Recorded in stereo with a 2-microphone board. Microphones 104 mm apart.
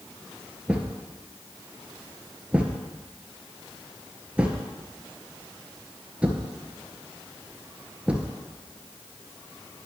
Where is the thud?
10° right (ahead or behind), 1.5 m.